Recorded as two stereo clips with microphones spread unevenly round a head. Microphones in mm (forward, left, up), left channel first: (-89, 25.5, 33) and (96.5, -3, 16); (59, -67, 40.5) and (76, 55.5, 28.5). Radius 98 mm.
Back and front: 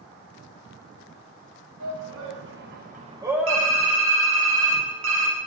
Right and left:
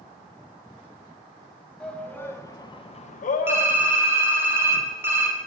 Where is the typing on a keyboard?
10° left, 1.1 m.